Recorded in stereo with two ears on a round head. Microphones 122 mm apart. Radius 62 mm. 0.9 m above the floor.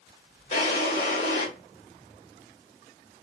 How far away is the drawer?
About 1.7 m.